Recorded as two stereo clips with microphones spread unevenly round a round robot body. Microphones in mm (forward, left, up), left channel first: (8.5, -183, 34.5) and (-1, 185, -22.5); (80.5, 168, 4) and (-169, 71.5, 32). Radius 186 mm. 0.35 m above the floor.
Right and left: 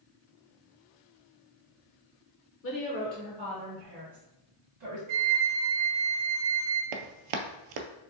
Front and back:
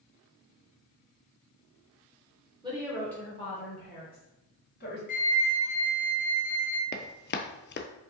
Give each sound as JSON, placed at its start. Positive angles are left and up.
{"t": 2.6, "sound": "a woman speaking", "azimuth_deg": -95, "distance_m": 0.9}
{"t": 5.1, "sound": "a flute", "azimuth_deg": 85, "distance_m": 0.7}
{"t": 6.9, "sound": "running footsteps", "azimuth_deg": 75, "distance_m": 0.6}